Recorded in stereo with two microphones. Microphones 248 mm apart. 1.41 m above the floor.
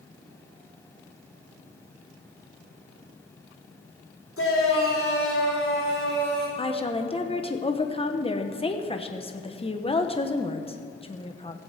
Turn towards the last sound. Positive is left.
turn(degrees=25)  # may be behind; listen again after turning